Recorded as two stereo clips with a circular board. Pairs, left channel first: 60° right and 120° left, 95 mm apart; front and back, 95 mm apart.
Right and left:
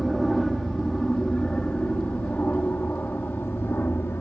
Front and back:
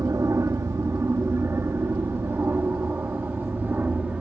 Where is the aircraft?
145° right; by 4.2 s 115° right.